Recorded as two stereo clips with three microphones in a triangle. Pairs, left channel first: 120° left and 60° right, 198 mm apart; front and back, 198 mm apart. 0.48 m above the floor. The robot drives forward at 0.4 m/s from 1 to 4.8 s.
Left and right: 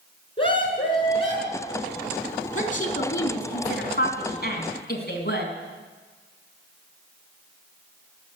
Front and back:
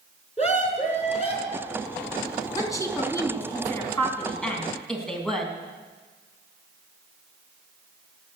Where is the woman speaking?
70° left, 3.5 m; by 5.5 s 85° left, 3.5 m.